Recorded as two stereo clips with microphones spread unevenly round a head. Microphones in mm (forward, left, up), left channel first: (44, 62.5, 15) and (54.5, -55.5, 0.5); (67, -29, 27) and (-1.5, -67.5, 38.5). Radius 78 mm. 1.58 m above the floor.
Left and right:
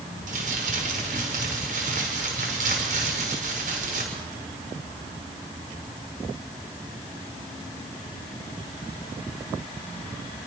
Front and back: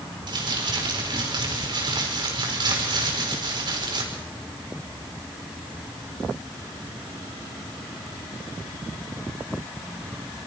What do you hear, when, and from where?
0.3 s crumpling: 130° right, 6 m